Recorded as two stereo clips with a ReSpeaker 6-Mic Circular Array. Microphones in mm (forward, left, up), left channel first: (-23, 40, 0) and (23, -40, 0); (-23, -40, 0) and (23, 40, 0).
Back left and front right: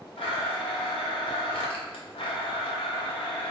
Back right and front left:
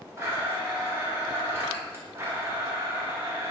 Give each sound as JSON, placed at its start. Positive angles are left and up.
{"t": 0.2, "sound": "a blender", "azimuth_deg": 125, "distance_m": 0.8}